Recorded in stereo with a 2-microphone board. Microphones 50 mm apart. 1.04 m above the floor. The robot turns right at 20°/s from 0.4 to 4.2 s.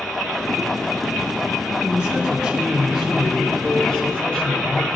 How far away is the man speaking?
About 3 m.